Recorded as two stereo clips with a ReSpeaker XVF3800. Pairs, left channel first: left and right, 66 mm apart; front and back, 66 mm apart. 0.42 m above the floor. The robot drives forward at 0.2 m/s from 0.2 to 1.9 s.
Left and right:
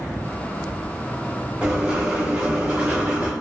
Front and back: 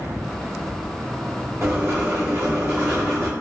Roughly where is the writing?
Behind right.